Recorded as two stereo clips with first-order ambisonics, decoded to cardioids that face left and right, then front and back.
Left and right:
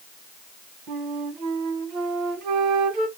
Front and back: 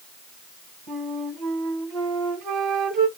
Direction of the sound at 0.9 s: 125° right.